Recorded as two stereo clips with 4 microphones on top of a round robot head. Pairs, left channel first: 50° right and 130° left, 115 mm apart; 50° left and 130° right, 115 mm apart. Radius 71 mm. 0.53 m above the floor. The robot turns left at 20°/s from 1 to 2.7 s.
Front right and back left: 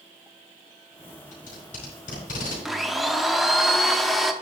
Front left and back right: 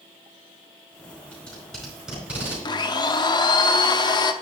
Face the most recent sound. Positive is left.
turn(degrees=40)